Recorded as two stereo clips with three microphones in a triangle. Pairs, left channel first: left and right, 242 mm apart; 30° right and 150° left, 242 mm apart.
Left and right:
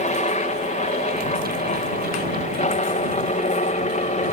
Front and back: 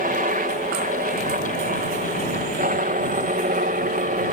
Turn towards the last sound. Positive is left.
turn(degrees=130)